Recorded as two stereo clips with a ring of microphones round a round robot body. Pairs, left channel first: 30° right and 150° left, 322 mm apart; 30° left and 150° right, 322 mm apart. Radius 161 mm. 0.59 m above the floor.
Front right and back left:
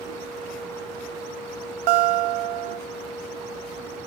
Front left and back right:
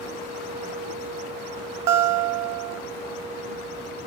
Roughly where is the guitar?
Behind.